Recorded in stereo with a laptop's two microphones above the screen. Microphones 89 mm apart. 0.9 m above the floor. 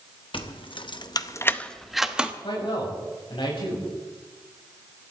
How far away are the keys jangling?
About 1.1 m.